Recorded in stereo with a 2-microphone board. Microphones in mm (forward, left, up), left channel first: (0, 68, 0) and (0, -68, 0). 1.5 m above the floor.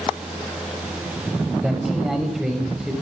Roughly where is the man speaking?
Centre.